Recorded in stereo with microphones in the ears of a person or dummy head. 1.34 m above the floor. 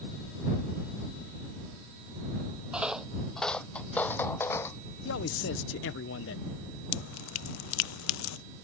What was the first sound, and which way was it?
Footsteps, 5° right (ahead or behind).